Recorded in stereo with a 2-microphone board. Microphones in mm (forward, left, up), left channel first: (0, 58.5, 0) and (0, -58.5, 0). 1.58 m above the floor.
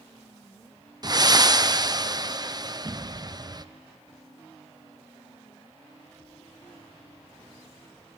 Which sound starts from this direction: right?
Breathing, at 1.0 s.